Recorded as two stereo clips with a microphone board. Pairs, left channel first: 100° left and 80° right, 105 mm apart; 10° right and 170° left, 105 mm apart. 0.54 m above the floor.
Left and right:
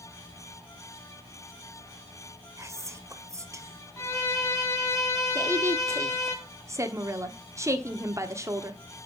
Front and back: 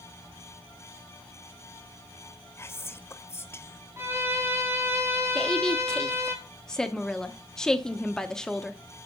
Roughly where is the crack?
I don't hear a crack.